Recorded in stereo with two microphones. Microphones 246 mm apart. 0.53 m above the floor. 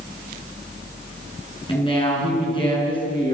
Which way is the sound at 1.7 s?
20° left (ahead or behind).